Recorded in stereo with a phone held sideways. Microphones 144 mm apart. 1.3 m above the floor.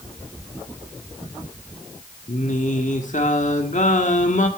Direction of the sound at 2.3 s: 60° left (ahead or behind).